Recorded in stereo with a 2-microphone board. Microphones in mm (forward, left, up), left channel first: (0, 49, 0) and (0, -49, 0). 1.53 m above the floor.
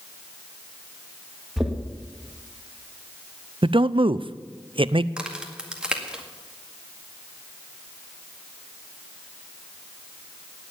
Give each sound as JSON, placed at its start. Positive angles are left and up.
{"t": 1.6, "sound": "knocking", "side_deg": -5, "distance_m": 1.9}
{"t": 3.6, "sound": "a man speaking", "side_deg": -60, "distance_m": 0.5}
{"t": 5.2, "sound": "a crack", "side_deg": -10, "distance_m": 1.9}